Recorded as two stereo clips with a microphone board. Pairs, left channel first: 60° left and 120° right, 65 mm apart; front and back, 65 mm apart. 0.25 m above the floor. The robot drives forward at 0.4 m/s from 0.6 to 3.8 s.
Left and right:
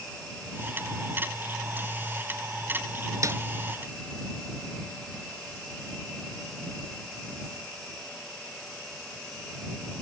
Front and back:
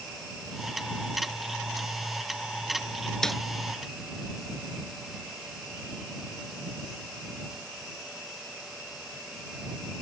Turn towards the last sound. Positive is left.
turn(degrees=-90)